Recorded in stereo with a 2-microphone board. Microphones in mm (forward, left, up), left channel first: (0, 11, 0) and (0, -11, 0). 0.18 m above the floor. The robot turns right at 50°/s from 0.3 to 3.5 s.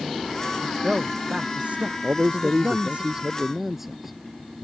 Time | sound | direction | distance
0.6 | a man speaking | 170° right | ?
2.0 | a man speaking | 85° right | ?